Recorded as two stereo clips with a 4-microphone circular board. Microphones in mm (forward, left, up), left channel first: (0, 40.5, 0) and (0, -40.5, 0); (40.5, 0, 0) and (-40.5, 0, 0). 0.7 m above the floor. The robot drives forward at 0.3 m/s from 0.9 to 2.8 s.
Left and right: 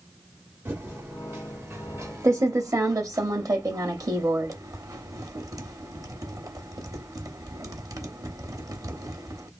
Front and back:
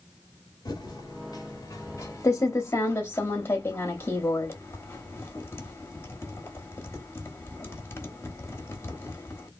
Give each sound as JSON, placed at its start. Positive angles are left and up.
{"t": 0.7, "sound": "typing on a keyboard", "azimuth_deg": -30, "distance_m": 1.3}